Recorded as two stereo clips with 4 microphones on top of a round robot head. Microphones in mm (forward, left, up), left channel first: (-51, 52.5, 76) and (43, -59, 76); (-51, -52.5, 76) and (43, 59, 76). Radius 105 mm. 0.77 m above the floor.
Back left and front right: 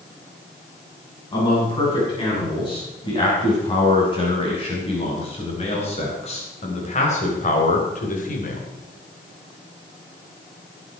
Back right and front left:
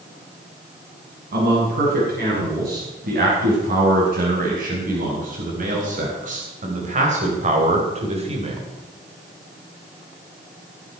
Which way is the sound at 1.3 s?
70° left.